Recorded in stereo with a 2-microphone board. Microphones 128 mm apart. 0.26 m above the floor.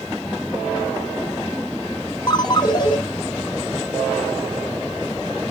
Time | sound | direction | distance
2.3 | a ringtone | 35° left (ahead or behind) | 1.1 m